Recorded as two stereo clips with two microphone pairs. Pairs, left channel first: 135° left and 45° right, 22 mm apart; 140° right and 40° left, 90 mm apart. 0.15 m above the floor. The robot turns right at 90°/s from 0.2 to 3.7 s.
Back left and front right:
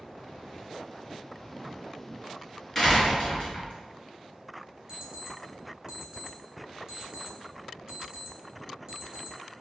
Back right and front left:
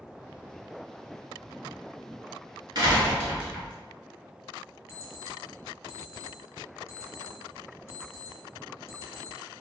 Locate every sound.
2.8 s a door slam: 60° left, 1.1 m; by 3.7 s 145° left, 1.1 m
4.9 s an alarm clock: 85° right, 1.2 m